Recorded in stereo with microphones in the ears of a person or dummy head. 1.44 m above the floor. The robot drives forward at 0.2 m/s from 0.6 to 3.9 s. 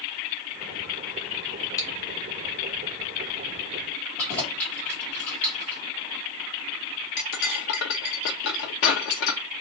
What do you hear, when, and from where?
1.8 s chewing: 20° left (ahead or behind), 0.6 m
4.2 s keys jangling: 10° left (ahead or behind), 1.2 m
7.2 s cutlery clinking: 50° left (ahead or behind), 0.7 m